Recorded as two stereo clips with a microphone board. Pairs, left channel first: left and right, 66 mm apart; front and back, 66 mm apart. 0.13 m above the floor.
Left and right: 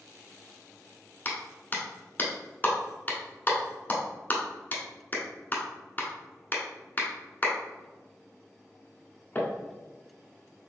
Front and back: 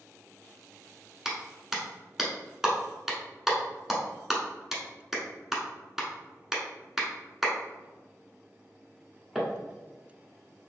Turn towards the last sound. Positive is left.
turn(degrees=100)